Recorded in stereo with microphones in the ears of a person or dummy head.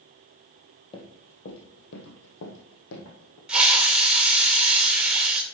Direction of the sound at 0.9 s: 25° left (ahead or behind).